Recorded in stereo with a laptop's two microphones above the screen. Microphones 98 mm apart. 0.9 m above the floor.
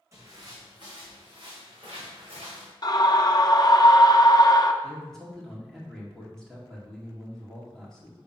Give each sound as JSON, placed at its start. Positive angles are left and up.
{"t": 0.1, "sound": "footsteps", "side_deg": -30, "distance_m": 2.5}
{"t": 2.8, "sound": "a scream", "side_deg": 40, "distance_m": 0.8}
{"t": 4.8, "sound": "a man speaking", "side_deg": 5, "distance_m": 1.8}